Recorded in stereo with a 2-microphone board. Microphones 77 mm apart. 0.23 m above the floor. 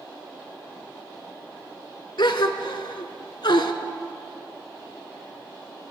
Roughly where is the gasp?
Left.